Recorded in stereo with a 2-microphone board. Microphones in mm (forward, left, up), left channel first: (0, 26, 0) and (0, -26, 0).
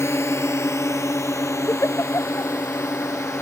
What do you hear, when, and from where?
0.0 s a drone: 55° left (ahead or behind); by 3.4 s 75° left (ahead or behind)
1.7 s a giggle: 65° left (ahead or behind)